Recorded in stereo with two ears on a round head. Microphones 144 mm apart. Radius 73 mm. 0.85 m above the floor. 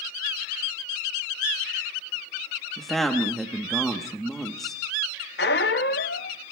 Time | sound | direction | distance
2.8 | a woman speaking | centre (ahead or behind) | 1.0 m
5.4 | a squeak | 65° left (ahead or behind) | 0.6 m